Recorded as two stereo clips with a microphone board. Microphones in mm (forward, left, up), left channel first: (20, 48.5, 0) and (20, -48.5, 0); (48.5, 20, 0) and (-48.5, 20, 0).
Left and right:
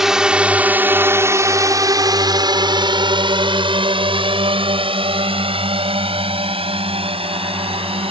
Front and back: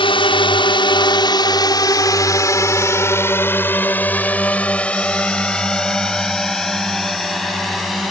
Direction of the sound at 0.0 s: 5° right.